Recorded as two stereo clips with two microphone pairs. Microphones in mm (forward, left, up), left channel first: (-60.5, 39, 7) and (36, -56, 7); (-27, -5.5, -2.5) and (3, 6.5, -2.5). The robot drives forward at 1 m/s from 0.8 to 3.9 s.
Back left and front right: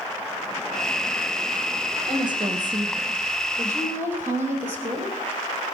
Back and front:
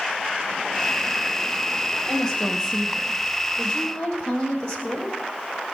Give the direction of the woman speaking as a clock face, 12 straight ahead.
3 o'clock.